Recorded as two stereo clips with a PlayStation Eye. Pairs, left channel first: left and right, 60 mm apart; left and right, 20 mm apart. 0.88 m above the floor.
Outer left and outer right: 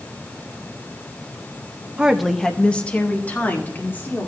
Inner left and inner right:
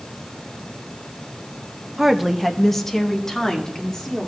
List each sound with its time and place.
2.0 s a woman speaking: 20° right (ahead or behind), 0.6 m; by 4.3 s 35° left (ahead or behind), 2.5 m